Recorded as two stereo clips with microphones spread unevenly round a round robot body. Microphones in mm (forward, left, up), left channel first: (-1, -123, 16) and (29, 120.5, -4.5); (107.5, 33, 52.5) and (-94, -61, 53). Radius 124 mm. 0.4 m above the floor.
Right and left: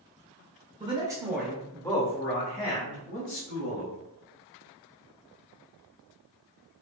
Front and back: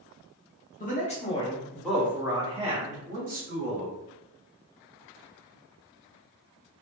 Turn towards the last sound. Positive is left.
turn(degrees=-125)